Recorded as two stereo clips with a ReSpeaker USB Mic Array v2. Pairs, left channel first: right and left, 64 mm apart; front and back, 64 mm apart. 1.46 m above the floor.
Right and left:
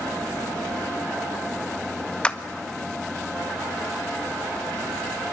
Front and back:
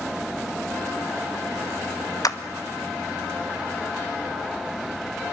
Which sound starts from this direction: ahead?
A clap, at 2.2 s.